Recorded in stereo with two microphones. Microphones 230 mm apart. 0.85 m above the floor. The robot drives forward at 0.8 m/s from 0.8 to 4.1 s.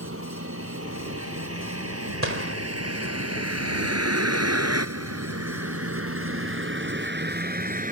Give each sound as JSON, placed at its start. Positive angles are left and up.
{"t": 0.0, "sound": "a vehicle", "side_deg": -65}
{"t": 2.2, "sound": "a gunshot", "side_deg": -60}